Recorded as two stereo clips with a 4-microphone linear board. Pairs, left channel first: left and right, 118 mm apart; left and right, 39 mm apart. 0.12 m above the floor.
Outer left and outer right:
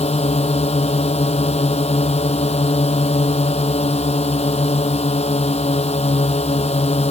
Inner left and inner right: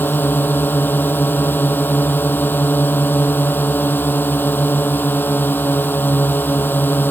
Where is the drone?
70° left (ahead or behind).